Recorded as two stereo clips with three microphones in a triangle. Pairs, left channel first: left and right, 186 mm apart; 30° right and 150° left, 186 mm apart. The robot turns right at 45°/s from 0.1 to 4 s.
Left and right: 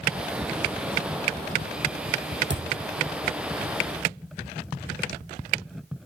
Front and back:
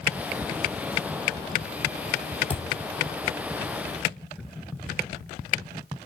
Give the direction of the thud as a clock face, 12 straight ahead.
3 o'clock.